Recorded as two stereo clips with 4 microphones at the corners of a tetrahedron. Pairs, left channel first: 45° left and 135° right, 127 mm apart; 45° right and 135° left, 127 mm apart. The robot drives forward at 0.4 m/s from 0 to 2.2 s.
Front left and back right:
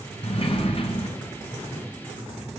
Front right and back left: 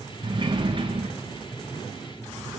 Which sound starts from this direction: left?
A sliding door, at 0.2 s.